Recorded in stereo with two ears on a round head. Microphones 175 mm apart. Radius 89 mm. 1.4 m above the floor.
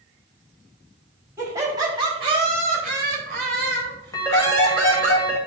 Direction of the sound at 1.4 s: 15° right (ahead or behind).